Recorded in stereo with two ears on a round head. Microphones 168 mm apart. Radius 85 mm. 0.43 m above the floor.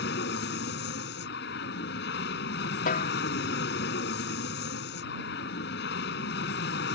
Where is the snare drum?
45° left (ahead or behind).